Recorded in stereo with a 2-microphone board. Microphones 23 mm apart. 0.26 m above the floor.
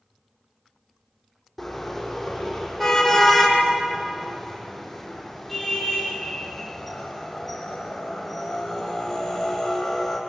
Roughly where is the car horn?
Centre.